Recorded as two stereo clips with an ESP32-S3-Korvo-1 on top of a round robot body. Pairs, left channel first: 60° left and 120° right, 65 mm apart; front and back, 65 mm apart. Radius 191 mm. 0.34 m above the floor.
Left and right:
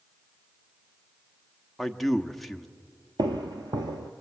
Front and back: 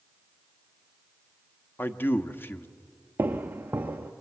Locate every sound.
1.8 s a man speaking: 25° right, 1.1 m
3.2 s footsteps: 115° right, 0.6 m